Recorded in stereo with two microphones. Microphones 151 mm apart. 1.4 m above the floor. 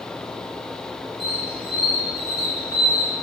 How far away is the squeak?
About 3 m.